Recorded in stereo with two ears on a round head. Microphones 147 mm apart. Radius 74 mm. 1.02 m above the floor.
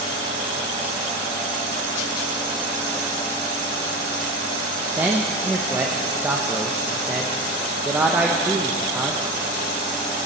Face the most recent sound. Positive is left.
turn(degrees=-10)  # may be behind; listen again after turning